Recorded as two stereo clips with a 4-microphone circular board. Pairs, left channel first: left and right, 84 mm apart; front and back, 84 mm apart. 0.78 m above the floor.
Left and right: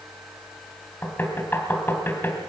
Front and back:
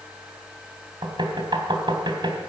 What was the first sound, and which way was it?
Knocking, 155° left.